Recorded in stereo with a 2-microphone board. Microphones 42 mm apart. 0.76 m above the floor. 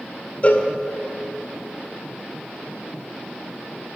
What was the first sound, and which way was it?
A cowbell, 35° left (ahead or behind).